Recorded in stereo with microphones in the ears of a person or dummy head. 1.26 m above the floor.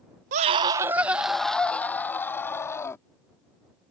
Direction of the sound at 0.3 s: 40° right (ahead or behind).